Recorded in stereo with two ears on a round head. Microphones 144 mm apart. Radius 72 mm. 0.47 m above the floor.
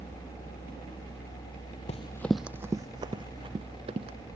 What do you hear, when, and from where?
1.9 s running footsteps: 45° left (ahead or behind); by 4.2 s 40° right (ahead or behind)